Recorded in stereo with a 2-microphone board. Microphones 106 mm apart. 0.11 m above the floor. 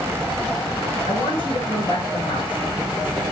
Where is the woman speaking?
55° left (ahead or behind), 7.5 m.